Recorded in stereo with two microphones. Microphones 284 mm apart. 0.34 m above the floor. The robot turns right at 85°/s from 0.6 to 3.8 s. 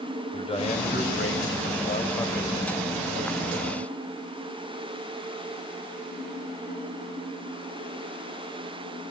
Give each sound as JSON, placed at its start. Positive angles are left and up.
{"t": 0.3, "sound": "a man speaking", "azimuth_deg": 25, "distance_m": 1.7}